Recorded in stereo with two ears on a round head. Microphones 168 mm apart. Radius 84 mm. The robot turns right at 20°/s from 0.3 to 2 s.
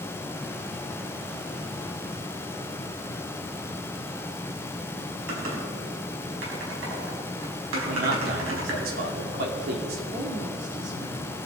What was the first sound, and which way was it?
Typing on a keyboard, 75° right (ahead or behind).